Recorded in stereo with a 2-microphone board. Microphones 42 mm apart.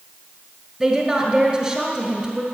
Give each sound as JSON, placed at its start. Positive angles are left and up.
{"t": 0.8, "sound": "a woman speaking", "side_deg": 0, "distance_m": 1.6}